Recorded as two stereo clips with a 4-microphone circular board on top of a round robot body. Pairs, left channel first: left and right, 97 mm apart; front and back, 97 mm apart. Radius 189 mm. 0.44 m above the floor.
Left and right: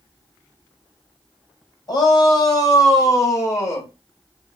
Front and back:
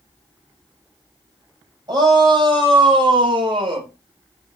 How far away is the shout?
About 4.5 m.